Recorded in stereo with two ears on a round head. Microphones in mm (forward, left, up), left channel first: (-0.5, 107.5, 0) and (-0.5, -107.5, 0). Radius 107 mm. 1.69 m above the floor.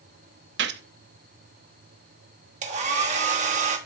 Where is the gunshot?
50° right (ahead or behind), 0.5 m.